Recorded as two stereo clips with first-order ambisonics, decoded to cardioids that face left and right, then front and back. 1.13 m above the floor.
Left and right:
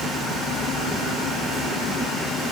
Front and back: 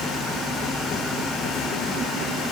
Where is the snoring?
No snoring in this recording.